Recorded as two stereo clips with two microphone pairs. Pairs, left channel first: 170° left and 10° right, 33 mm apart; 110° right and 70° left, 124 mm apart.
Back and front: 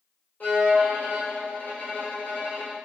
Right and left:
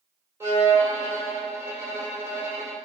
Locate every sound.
0.4 s a violin: 140° left, 1.7 m